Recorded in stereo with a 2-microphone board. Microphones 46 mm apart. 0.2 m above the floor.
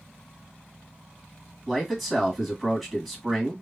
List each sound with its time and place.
1.7 s a man speaking: centre (ahead or behind), 1.4 m